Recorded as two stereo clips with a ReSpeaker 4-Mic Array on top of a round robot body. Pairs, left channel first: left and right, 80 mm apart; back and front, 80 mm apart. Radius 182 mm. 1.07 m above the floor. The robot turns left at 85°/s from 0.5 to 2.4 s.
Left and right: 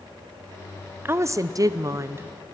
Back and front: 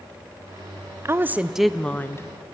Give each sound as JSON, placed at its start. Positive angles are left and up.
{"t": 1.1, "sound": "a woman speaking", "azimuth_deg": -40, "distance_m": 0.9}